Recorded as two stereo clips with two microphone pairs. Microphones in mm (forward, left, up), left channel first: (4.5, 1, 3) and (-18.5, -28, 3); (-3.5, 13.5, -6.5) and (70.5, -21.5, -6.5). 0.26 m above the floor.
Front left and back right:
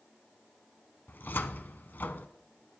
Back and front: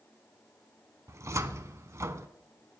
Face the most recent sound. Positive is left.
turn(degrees=25)